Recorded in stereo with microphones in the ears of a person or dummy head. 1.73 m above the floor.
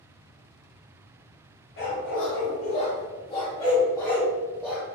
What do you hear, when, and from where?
1.8 s a dog barking: 45° left (ahead or behind), 1.6 m; by 4.8 s 5° left (ahead or behind), 1.7 m